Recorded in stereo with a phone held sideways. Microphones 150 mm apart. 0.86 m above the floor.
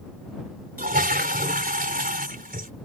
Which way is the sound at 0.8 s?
75° right (ahead or behind).